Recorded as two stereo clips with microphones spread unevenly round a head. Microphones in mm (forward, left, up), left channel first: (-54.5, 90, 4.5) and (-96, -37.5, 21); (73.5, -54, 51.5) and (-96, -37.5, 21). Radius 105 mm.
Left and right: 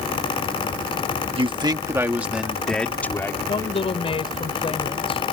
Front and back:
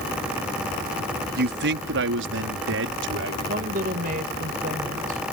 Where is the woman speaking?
120° left.